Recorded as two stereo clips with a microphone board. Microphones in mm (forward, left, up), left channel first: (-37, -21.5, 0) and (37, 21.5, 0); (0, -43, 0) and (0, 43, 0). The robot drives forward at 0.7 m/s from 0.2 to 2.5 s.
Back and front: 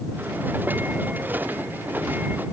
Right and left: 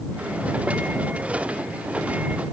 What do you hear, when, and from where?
Only background noise.